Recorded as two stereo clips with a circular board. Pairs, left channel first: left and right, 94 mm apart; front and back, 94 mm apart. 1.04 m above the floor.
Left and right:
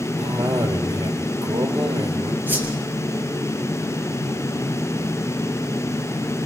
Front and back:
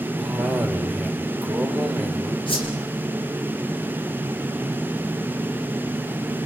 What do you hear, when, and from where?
0.2 s a cough: 90° right, 2.5 m
2.5 s a whoosh: 20° right, 4.5 m